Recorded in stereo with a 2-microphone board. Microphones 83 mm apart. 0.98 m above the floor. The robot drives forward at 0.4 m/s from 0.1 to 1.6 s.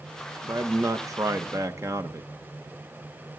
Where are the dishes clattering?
I don't hear dishes clattering.